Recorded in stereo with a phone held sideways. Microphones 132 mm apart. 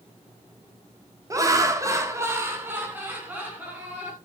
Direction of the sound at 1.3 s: 25° right (ahead or behind).